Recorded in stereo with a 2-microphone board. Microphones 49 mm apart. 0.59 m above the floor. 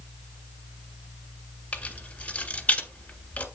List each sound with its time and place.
1.7 s keys jangling: 35° left (ahead or behind), 1.6 m